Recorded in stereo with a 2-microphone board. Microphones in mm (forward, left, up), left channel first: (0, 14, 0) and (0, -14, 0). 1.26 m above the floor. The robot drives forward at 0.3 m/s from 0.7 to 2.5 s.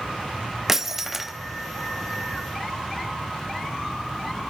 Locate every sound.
0.7 s breaking glass: 10° right (ahead or behind), 0.8 m